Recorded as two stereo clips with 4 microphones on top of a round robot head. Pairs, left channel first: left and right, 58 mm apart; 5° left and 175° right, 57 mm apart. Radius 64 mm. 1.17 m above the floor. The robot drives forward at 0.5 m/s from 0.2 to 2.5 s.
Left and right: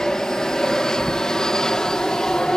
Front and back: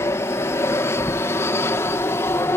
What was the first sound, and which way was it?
An aircraft, 15° left.